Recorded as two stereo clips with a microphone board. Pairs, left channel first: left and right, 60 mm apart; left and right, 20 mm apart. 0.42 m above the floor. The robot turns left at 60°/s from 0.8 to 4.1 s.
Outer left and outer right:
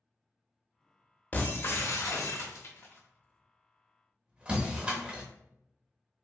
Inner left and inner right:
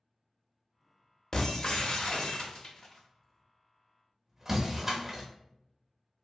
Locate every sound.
1.3 s breaking glass: 30° left (ahead or behind), 0.6 m; by 5.2 s 20° right (ahead or behind), 0.6 m